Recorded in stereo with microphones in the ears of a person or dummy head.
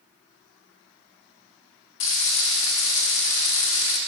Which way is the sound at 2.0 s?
35° left (ahead or behind).